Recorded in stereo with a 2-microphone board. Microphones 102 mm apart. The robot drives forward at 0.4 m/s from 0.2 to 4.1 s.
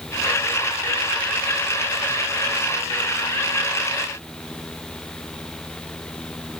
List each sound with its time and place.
Only background noise.